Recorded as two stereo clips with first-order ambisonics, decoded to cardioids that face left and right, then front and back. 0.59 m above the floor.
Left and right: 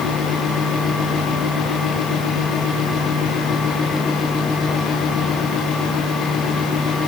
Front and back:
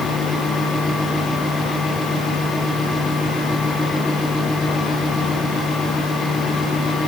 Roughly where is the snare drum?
No snare drum in this recording.